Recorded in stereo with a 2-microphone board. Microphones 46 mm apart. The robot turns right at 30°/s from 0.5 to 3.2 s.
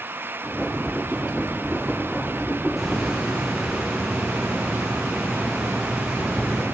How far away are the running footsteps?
I don't hear running footsteps.